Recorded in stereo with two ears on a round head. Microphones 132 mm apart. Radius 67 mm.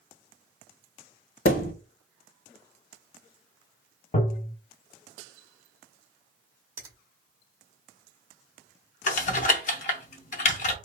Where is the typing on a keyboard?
55° left (ahead or behind), 0.6 m.